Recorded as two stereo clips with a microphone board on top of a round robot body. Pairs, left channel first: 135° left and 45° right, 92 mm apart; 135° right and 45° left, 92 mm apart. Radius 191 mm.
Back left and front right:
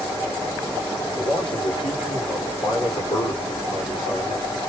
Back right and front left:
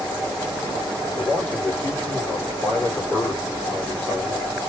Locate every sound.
1.1 s a man speaking: 160° left, 2.5 m